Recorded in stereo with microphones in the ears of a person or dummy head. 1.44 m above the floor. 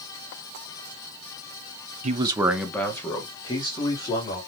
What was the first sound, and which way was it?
A man speaking, 45° right (ahead or behind).